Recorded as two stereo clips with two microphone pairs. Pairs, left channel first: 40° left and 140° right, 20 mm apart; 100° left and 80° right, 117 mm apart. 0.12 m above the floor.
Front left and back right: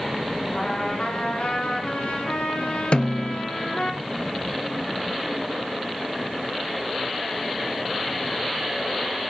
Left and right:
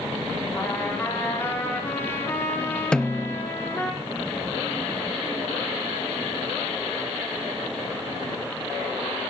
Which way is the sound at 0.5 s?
35° left.